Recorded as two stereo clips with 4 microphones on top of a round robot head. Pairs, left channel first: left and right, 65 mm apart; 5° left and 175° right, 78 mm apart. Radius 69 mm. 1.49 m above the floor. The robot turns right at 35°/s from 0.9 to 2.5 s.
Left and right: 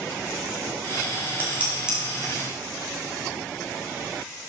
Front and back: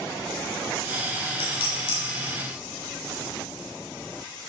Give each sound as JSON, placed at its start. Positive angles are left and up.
{"t": 1.4, "sound": "dishes clattering", "azimuth_deg": -25, "distance_m": 2.5}